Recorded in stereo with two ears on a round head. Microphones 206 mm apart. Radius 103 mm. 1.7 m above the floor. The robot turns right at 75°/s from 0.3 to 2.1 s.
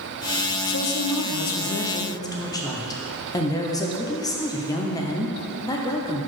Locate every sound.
0.7 s a woman speaking: 55° left, 0.7 m; by 6.3 s 165° left, 0.7 m